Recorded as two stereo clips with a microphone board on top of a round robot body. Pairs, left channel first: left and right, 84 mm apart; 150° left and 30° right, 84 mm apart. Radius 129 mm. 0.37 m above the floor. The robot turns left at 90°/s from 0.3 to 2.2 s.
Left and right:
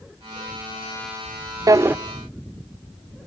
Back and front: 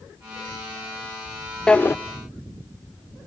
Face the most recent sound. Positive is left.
turn(degrees=180)